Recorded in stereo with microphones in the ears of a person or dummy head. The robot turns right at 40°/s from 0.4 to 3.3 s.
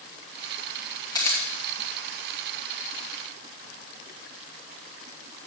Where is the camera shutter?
20° left (ahead or behind), 2.5 m; by 1.4 s 10° left (ahead or behind), 2.5 m.